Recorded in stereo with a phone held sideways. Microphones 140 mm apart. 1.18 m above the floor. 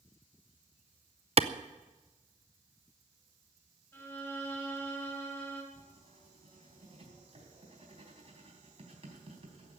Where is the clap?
45° right (ahead or behind), 0.6 m.